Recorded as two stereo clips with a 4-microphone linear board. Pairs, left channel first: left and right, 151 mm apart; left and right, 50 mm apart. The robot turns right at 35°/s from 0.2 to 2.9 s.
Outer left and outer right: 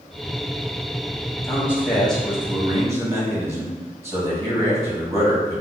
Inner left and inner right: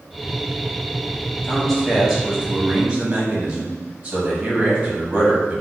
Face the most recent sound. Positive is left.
turn(degrees=-155)